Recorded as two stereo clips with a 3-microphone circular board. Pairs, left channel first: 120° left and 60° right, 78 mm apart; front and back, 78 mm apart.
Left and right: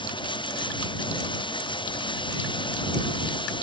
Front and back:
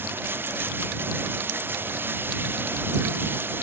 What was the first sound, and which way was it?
Running water, 115° left.